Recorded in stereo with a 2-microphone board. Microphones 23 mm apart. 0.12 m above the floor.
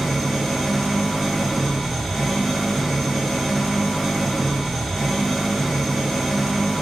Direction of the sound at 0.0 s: 10° left (ahead or behind).